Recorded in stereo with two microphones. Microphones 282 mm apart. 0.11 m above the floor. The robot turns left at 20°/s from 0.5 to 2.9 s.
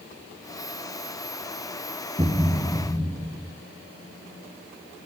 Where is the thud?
20° right (ahead or behind), 1.9 m; by 3.5 s 5° right (ahead or behind), 1.9 m.